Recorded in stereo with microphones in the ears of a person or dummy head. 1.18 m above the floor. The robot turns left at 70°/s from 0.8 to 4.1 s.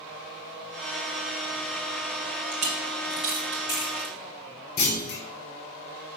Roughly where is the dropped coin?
Right.